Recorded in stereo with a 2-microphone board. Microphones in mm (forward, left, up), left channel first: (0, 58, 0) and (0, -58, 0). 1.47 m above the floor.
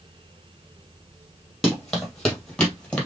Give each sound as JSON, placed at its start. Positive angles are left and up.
{"t": 1.6, "sound": "running footsteps", "side_deg": 0, "distance_m": 3.0}